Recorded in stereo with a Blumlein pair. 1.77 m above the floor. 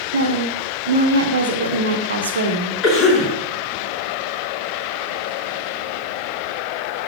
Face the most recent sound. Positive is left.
turn(degrees=30)